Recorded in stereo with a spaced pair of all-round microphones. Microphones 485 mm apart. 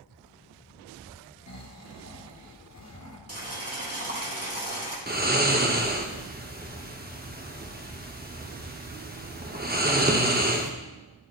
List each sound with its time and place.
1.5 s snoring: 35° left (ahead or behind), 0.9 m
3.3 s boiling: 30° right (ahead or behind), 1.9 m
5.1 s snoring: 20° right (ahead or behind), 0.8 m